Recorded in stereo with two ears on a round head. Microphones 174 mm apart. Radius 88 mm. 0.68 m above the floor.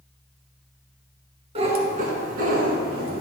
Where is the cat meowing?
35° right (ahead or behind), 1.4 m; by 3.2 s 60° right (ahead or behind), 2 m.